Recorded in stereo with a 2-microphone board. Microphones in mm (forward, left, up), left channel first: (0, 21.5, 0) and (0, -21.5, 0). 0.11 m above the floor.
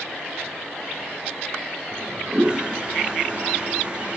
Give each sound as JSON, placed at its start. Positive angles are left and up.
{"t": 1.9, "sound": "a toilet flushing", "side_deg": -25, "distance_m": 0.6}